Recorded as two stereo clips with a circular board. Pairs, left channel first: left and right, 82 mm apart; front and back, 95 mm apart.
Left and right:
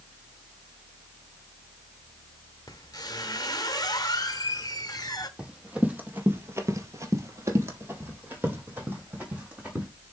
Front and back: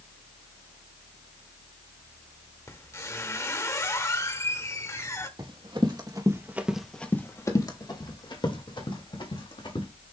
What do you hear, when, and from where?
2.7 s a squeak: 55° left, 0.9 m
5.4 s running footsteps: 165° right, 1.8 m; by 9.9 s 15° right, 3.5 m